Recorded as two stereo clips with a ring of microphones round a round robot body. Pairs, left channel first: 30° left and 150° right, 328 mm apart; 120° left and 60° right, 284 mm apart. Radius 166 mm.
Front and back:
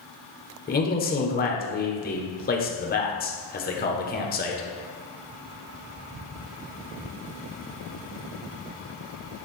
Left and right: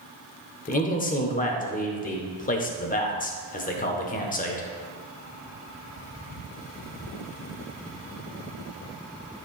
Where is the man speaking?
75° left, 1.1 m.